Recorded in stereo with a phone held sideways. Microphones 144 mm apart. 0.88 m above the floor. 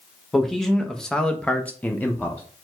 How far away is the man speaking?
About 0.9 m.